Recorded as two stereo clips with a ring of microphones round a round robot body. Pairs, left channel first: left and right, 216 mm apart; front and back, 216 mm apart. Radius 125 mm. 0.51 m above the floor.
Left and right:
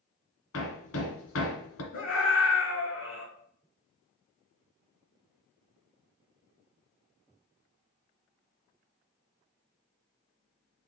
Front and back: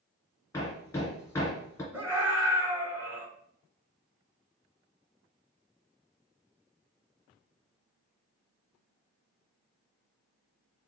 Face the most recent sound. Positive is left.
turn(degrees=100)